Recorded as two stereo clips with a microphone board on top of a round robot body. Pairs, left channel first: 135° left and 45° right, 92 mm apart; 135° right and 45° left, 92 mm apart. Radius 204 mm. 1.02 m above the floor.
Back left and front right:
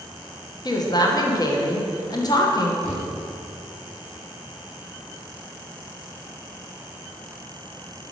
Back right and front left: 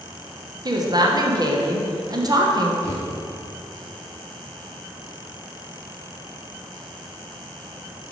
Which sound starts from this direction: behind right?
A thud, at 2.8 s.